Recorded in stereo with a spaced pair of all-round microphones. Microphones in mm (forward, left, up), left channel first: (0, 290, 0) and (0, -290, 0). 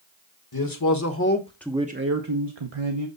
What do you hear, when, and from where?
0.5 s a man speaking: 40° left (ahead or behind), 1.4 m; by 3.1 s 65° right (ahead or behind), 1.2 m